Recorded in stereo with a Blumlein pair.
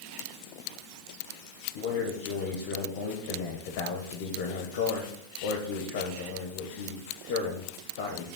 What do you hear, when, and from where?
1.8 s a man speaking: 50° left, 1.3 m